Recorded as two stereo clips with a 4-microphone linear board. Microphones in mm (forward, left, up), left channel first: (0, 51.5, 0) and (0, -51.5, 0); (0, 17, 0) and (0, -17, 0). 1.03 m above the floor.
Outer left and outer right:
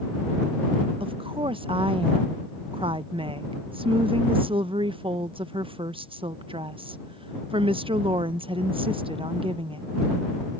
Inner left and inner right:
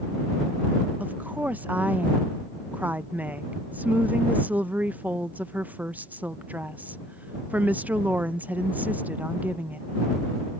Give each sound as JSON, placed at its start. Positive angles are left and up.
{"t": 1.0, "sound": "a woman speaking", "side_deg": -60}